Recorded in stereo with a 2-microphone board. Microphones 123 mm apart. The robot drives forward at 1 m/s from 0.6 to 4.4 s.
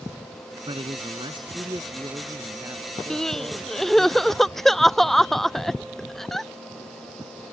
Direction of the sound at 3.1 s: 5° left (ahead or behind).